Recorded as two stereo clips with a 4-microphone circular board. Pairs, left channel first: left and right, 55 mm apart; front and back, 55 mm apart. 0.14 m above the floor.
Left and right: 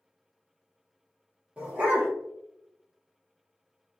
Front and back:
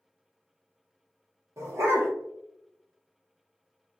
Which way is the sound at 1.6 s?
160° right.